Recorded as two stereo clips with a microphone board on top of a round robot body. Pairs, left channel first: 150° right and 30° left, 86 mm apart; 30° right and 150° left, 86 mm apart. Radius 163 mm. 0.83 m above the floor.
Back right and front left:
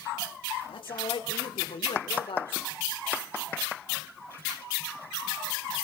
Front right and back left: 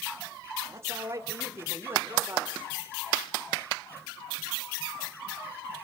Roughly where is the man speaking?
Behind right.